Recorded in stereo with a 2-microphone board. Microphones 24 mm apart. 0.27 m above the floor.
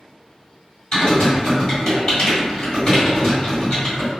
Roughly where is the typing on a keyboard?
Left.